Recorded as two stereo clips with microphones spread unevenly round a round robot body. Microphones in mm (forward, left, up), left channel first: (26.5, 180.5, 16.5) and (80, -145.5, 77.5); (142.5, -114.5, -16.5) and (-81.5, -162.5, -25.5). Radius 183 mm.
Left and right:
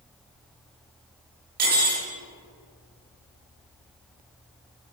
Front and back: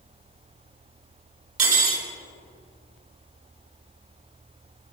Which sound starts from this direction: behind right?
Cutlery clinking, at 1.6 s.